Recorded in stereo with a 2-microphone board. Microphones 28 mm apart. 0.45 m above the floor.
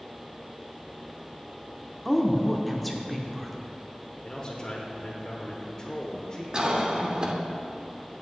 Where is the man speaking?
30° left (ahead or behind), 1.0 m.